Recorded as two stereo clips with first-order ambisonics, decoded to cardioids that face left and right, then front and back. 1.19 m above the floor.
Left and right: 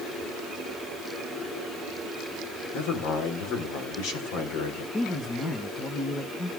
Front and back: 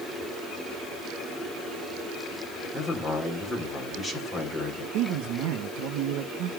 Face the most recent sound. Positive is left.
turn(degrees=155)